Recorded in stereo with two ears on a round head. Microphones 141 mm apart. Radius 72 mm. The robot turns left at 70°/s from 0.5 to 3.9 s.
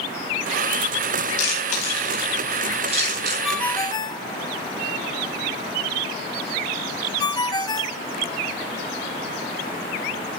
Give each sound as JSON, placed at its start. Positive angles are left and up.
{"t": 1.4, "sound": "chewing", "side_deg": 70, "distance_m": 10.0}
{"t": 3.4, "sound": "a ringtone", "side_deg": -5, "distance_m": 1.0}